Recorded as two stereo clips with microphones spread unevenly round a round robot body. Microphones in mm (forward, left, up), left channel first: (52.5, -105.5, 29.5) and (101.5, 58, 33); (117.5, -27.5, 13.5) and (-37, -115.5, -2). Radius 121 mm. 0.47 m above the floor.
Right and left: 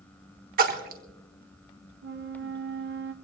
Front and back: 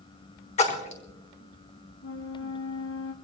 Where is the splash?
85° left, 1.5 m.